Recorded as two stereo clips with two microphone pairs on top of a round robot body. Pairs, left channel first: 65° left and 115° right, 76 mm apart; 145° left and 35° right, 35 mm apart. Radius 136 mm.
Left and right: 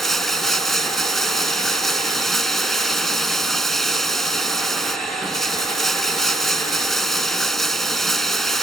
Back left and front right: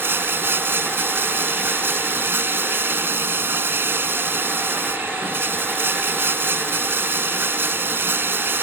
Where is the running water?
25° right.